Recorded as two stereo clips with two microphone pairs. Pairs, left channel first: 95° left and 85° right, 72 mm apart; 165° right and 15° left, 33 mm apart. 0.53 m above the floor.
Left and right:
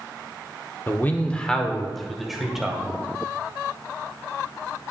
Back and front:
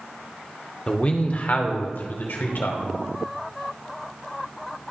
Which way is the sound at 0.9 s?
145° left.